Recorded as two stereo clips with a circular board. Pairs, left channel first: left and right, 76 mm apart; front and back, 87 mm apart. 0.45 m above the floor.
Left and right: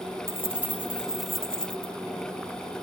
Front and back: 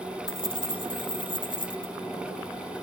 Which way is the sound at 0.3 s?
30° right.